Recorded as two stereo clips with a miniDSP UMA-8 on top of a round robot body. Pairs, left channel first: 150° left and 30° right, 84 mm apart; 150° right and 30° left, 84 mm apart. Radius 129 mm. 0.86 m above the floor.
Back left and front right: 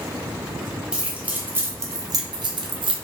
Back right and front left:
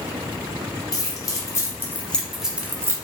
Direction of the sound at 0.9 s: 110° right.